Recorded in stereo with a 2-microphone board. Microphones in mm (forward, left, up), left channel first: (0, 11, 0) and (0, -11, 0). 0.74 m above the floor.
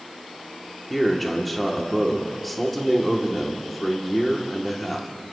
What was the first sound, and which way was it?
A man speaking, 5° left (ahead or behind).